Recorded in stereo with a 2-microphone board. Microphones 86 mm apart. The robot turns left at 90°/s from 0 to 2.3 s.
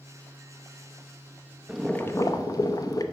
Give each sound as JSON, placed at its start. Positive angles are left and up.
{"t": 1.7, "sound": "boiling", "azimuth_deg": -170, "distance_m": 0.6}